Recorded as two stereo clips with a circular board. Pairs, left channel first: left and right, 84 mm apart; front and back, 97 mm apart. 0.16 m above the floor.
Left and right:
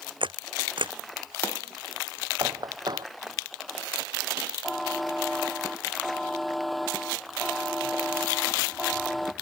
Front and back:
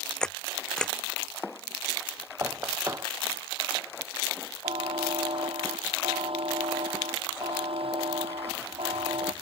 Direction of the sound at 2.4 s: 120° right.